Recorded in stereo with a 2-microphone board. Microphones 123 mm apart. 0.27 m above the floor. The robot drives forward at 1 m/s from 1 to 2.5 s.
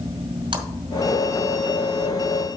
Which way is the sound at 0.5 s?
40° right (ahead or behind).